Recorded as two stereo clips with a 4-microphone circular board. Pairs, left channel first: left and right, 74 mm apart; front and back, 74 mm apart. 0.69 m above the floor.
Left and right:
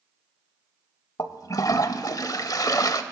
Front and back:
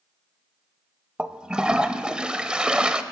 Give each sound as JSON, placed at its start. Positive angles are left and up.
{"t": 1.2, "sound": "a toilet flushing", "azimuth_deg": 105, "distance_m": 0.6}